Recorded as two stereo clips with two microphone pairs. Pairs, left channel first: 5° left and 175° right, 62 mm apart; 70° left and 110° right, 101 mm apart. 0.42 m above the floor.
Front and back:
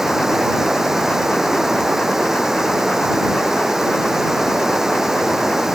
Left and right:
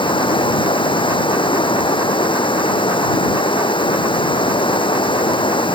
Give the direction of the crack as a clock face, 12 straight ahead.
I don't hear a crack.